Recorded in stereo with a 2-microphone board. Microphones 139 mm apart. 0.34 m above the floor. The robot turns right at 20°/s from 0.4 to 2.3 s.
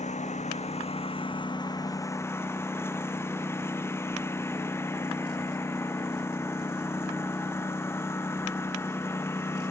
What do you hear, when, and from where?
0.0 s a lawn mower: 125° left; by 9.7 s 165° left